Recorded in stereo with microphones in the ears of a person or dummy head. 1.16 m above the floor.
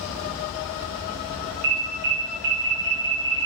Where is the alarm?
50° right (ahead or behind), 1.5 m.